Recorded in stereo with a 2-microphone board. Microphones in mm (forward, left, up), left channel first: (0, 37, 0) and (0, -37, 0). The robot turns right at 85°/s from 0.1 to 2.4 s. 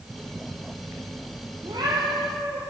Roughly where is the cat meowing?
Right.